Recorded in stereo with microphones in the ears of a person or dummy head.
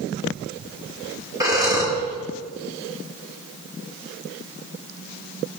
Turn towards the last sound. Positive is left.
turn(degrees=-15)  # may be behind; listen again after turning